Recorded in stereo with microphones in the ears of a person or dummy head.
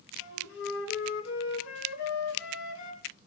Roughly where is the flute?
Left.